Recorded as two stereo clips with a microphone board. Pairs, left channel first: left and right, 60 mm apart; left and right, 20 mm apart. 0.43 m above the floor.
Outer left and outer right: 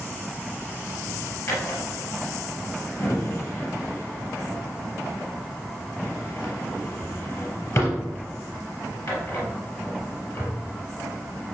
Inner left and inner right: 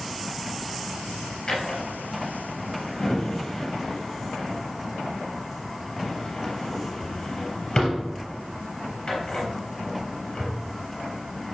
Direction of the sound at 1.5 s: 60° left (ahead or behind).